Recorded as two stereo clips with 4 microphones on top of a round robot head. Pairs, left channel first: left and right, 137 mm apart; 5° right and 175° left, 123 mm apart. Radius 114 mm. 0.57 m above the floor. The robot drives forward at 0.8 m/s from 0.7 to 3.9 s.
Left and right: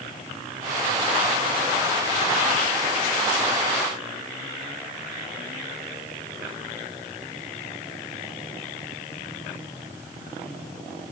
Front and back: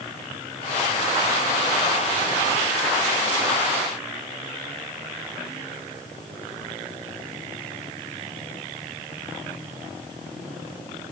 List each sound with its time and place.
Only background noise.